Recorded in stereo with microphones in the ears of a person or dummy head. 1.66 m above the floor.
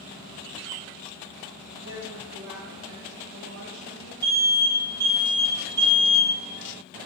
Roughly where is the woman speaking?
Right.